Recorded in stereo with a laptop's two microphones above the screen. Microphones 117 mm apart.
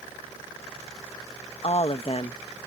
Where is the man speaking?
55° left (ahead or behind).